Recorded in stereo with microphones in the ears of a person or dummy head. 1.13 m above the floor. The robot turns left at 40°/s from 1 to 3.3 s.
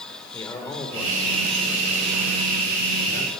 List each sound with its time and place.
0.3 s a man speaking: 15° left, 5 m; by 3.3 s 75° right, 5 m